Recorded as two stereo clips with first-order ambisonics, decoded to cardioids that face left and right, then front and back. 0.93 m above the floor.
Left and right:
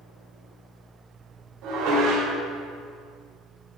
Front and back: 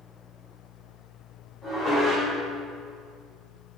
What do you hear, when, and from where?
1.6 s dishes clattering: 75° right, 2 m